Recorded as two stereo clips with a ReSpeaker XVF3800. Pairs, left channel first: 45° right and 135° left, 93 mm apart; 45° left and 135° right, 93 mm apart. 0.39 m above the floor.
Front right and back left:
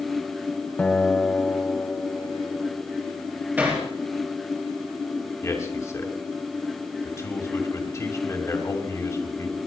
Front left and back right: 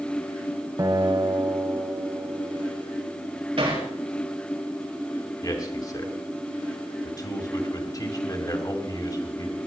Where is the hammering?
155° right, 5 m.